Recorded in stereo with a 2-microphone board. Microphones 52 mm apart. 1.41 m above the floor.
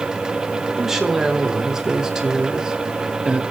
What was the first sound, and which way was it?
A woman speaking, 10° right (ahead or behind).